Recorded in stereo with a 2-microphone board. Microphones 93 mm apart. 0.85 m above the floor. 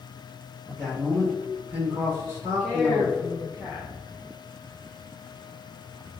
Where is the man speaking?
10° left (ahead or behind), 1.2 m; by 3.3 s 40° right (ahead or behind), 1.4 m.